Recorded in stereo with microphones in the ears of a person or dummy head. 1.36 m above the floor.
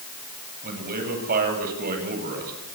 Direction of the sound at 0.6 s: 45° right (ahead or behind).